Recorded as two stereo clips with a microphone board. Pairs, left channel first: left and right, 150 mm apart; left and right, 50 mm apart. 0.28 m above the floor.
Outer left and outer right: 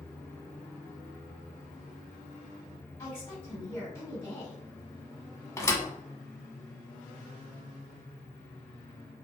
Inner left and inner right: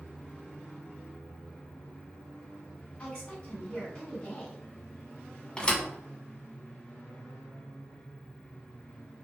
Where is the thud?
20° left (ahead or behind), 0.6 m.